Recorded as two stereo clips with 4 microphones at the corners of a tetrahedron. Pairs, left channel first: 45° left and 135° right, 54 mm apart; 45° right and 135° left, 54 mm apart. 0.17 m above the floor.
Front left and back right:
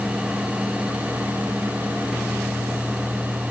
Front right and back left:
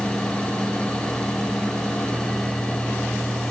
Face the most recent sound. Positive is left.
No sound to turn to.